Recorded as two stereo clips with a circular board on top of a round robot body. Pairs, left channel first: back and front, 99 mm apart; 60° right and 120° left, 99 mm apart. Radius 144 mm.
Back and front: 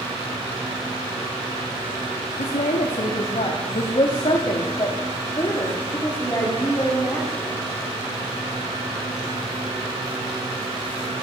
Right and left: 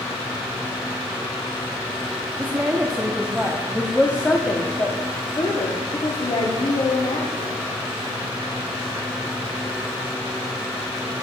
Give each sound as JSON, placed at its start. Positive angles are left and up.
{"t": 2.4, "sound": "a woman speaking", "azimuth_deg": -165, "distance_m": 1.7}